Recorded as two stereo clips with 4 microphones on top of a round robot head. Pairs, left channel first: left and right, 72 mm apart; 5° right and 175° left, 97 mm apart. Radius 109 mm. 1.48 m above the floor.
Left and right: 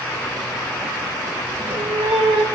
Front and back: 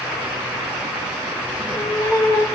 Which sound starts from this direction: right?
A cat meowing, at 1.5 s.